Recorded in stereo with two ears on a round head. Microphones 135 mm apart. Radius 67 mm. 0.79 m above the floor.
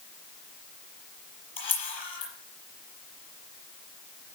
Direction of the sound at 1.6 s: 35° left (ahead or behind).